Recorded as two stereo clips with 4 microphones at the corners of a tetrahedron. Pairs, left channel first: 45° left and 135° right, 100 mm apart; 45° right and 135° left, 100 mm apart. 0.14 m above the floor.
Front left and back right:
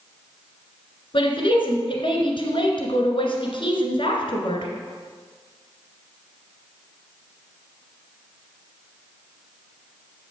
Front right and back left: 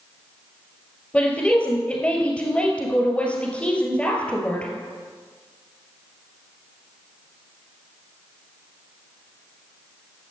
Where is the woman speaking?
30° left, 1.9 m.